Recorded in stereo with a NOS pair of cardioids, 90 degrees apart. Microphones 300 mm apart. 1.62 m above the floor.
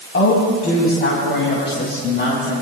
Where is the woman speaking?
40° left, 5 m; by 2.5 s 35° left, 7 m.